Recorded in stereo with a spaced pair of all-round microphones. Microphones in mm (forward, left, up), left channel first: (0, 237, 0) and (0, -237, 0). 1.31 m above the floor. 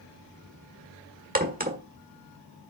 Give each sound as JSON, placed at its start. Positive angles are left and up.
{"t": 1.4, "sound": "a crack", "side_deg": -20, "distance_m": 1.5}